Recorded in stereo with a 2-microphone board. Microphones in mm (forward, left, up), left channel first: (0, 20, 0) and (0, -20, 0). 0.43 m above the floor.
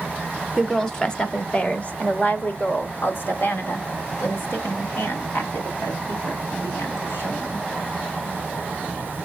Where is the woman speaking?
10° left (ahead or behind), 1.3 m; by 7.7 s 75° left (ahead or behind), 4 m.